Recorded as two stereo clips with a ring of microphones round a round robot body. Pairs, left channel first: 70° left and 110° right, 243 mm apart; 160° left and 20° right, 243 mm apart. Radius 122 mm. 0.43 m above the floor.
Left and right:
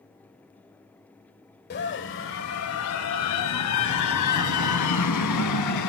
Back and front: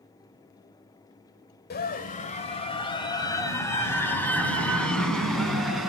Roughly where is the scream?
Left.